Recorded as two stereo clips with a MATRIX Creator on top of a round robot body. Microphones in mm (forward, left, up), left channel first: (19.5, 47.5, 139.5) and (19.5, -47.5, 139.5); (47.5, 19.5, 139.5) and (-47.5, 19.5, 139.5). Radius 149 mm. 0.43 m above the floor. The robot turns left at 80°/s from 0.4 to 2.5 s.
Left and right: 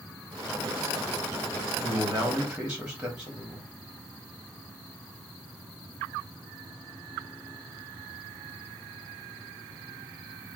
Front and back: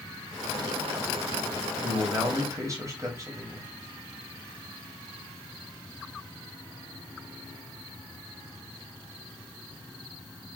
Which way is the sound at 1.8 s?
110° right.